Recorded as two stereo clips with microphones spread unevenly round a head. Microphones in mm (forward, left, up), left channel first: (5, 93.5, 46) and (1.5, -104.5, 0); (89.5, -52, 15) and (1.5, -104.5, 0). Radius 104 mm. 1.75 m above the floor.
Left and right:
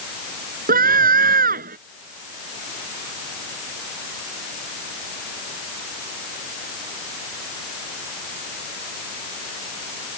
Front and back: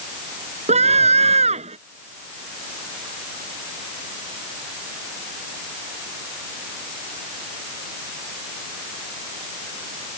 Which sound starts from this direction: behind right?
A scream, at 0.7 s.